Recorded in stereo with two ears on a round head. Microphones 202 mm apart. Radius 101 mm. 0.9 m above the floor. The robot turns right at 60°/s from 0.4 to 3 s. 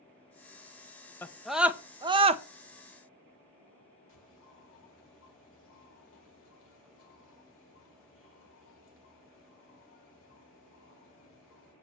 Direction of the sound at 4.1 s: 60° left (ahead or behind).